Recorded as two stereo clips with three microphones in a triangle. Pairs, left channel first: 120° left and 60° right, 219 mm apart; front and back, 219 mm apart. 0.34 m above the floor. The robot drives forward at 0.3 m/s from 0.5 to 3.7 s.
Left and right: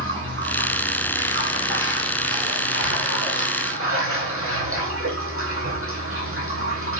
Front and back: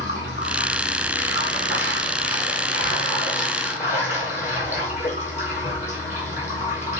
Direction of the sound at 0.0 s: 35° right.